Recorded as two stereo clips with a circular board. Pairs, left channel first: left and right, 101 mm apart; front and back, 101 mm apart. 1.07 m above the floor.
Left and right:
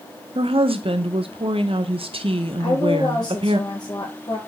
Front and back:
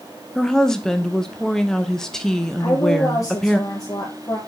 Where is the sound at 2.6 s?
50° left, 0.9 m.